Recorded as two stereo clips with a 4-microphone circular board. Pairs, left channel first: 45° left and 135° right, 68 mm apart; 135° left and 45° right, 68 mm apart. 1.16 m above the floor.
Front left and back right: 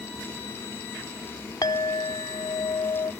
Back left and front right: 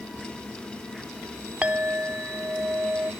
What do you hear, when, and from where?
1.6 s a clink: 20° left